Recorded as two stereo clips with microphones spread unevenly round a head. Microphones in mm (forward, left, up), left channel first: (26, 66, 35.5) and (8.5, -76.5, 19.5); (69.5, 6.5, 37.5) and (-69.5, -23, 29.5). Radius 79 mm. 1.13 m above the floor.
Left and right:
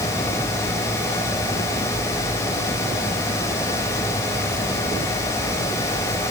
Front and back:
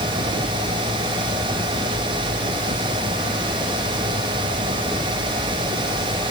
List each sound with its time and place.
Only background noise.